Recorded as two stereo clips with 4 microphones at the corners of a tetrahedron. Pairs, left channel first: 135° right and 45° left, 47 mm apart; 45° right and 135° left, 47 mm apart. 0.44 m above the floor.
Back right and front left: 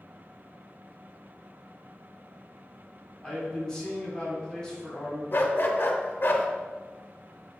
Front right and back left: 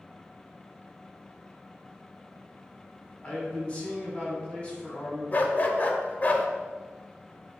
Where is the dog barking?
95° right, 0.5 m.